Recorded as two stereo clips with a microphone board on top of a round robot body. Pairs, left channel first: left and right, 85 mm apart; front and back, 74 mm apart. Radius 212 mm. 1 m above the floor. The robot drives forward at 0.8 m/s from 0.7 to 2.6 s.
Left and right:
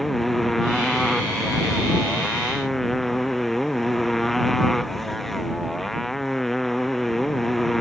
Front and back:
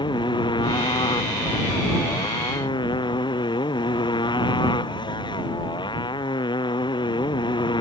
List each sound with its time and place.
0.0 s a motorcycle: straight ahead